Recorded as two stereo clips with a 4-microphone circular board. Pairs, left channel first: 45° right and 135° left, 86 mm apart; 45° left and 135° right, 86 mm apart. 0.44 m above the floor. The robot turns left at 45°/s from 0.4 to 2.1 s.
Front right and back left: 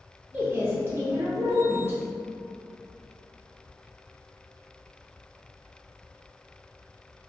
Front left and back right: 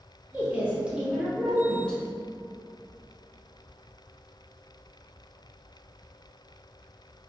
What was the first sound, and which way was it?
A woman speaking, straight behind.